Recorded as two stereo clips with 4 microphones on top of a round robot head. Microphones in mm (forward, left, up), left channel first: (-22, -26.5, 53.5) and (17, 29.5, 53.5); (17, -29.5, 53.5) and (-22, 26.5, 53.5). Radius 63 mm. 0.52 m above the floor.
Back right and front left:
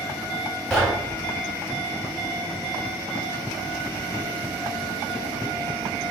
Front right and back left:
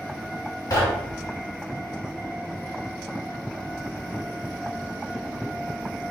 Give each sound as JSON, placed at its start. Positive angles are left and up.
{"t": 0.7, "sound": "knocking", "azimuth_deg": -40, "distance_m": 1.3}